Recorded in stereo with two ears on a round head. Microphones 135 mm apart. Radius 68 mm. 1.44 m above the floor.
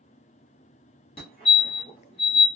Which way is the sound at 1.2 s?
40° left (ahead or behind).